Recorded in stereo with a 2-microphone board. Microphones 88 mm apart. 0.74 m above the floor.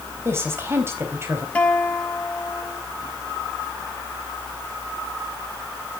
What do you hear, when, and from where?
0.2 s a woman speaking: 30° right (ahead or behind), 4.5 m
1.6 s a guitar: 15° left (ahead or behind), 3 m